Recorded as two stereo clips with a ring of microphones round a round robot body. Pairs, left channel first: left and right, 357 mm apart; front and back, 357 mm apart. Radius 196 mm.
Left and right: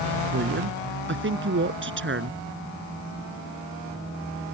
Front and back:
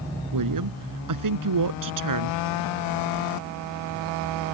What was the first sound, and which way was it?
A woman speaking, 150° right.